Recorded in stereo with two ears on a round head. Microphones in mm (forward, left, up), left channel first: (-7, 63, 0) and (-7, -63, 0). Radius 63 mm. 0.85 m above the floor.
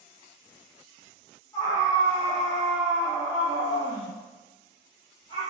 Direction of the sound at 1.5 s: 30° left (ahead or behind).